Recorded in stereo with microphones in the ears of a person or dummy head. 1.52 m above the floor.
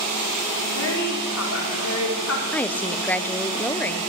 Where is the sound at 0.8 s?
80° left, 4 m.